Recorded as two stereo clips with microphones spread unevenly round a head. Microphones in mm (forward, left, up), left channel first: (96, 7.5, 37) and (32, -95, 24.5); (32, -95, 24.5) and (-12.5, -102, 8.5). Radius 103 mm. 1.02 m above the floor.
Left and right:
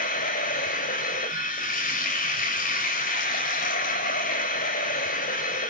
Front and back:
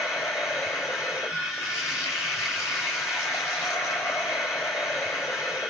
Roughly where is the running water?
Left.